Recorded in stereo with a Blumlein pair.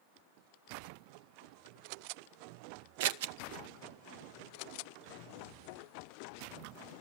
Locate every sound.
3.0 s scissors: 50° right, 0.6 m